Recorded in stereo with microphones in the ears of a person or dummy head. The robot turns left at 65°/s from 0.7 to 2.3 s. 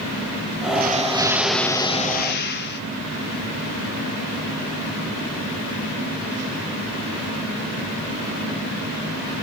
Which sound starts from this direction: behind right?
An explosion, at 0.8 s.